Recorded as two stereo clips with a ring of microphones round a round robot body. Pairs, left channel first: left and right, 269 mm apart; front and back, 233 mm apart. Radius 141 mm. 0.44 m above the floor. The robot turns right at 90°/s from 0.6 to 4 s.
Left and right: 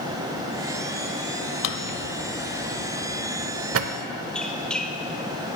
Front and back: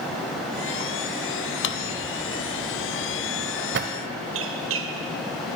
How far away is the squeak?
About 1.0 m.